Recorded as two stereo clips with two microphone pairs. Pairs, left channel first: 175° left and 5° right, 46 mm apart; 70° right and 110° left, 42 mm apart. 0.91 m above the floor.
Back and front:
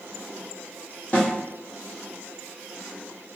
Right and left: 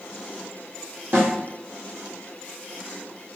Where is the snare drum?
120° left, 1.2 m.